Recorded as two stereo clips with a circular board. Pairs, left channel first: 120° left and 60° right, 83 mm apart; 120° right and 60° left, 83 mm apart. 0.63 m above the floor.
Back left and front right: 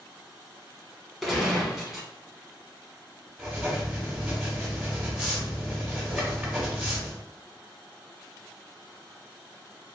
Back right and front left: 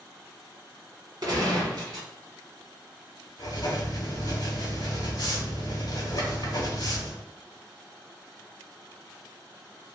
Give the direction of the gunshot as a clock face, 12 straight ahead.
11 o'clock.